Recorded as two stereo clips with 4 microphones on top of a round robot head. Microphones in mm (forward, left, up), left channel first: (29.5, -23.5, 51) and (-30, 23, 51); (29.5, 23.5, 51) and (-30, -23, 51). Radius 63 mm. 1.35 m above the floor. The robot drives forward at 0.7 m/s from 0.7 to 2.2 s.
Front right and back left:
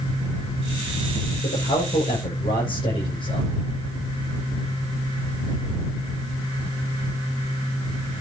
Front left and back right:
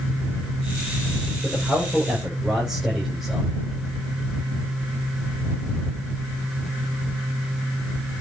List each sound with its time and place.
1.4 s a man speaking: 50° right, 7 m; by 3.5 s 55° right, 7 m